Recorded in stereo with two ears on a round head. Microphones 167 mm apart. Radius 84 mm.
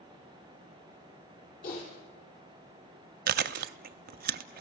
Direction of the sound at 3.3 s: 50° right (ahead or behind).